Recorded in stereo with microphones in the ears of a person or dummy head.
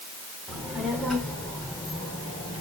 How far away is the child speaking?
About 3.5 m.